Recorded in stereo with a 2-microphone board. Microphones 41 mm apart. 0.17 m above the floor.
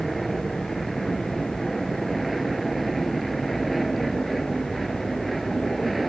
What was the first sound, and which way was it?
An aircraft, centre (ahead or behind).